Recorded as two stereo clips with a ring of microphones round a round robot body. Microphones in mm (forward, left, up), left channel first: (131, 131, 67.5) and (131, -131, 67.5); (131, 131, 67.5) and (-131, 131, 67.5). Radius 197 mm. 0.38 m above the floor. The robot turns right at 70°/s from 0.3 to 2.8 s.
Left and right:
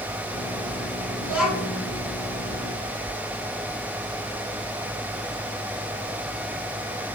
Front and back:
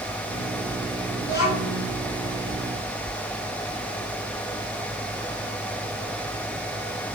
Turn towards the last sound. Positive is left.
turn(degrees=95)